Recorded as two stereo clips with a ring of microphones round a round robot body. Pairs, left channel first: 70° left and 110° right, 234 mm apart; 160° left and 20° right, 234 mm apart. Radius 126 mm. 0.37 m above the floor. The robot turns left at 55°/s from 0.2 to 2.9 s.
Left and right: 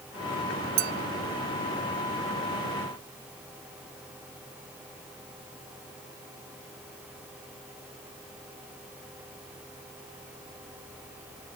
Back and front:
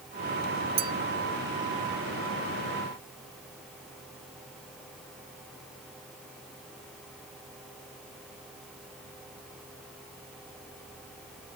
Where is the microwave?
I don't hear a microwave.